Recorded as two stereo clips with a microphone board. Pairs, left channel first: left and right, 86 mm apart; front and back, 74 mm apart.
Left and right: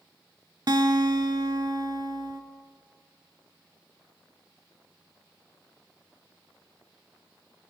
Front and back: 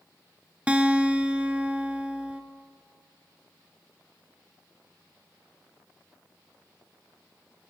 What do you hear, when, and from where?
0.7 s a guitar: 110° right, 0.6 m